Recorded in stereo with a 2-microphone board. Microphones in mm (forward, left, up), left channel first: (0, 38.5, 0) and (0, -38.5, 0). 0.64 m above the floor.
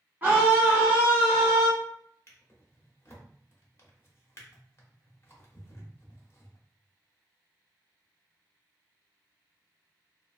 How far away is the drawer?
About 0.9 m.